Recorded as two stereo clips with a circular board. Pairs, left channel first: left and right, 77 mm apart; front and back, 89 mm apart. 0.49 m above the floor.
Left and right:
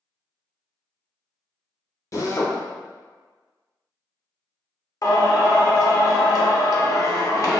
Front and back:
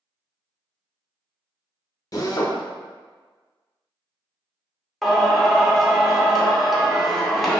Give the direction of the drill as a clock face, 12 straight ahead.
10 o'clock.